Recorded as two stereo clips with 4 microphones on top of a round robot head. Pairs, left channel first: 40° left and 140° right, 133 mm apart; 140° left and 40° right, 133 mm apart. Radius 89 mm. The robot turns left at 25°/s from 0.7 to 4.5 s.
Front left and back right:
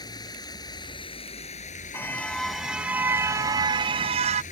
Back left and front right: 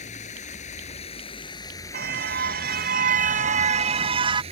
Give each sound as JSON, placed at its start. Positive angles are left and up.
{"t": 0.0, "sound": "running water", "azimuth_deg": 100}
{"t": 1.9, "sound": "a car horn", "azimuth_deg": -35}